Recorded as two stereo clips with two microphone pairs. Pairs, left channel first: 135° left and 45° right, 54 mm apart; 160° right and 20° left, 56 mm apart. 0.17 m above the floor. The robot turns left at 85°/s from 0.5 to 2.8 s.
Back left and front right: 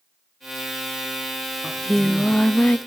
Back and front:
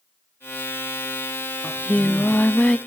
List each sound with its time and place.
1.6 s singing: 125° right, 0.7 m; by 2.8 s 140° left, 0.7 m